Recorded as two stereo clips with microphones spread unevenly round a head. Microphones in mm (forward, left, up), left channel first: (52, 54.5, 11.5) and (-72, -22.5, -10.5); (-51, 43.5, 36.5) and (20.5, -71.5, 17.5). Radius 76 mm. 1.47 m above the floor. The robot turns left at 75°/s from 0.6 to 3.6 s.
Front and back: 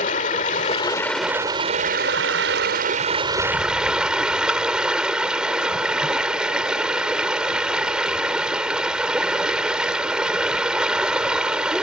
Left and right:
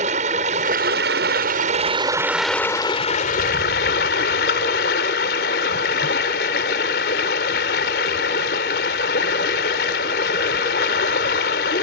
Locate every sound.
0.0 s running water: 10° right; by 11.8 s 125° left